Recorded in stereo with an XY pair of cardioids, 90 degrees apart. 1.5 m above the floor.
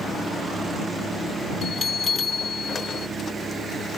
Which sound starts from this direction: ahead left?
A bell, at 1.6 s.